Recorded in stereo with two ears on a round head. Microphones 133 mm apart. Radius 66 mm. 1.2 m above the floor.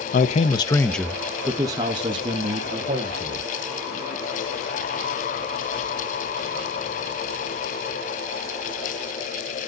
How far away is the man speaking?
About 0.6 m.